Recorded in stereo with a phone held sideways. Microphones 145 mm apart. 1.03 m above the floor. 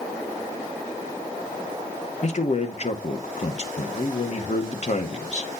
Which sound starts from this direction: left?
A man speaking, at 2.2 s.